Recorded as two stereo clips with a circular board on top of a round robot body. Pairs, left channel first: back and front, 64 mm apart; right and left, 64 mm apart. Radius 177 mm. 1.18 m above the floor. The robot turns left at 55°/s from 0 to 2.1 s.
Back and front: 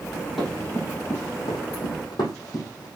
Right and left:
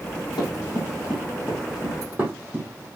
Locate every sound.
0.4 s running footsteps: 85° right, 3.5 m; by 2.9 s 150° left, 3.5 m